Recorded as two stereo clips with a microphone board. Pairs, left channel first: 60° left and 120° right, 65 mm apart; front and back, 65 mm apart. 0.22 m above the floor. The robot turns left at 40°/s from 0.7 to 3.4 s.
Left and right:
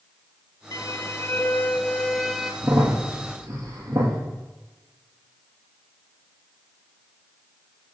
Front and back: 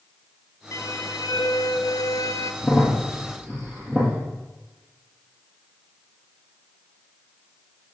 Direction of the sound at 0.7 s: 35° left.